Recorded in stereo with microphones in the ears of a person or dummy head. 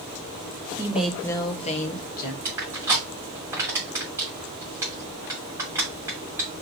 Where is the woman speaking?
20° right (ahead or behind), 0.7 m; by 2.4 s 50° left (ahead or behind), 1.4 m.